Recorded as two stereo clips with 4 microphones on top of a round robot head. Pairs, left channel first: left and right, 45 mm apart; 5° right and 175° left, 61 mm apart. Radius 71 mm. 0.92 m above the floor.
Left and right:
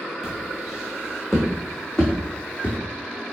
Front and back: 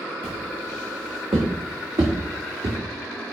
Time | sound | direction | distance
0.2 | footsteps | 170° right | 4 m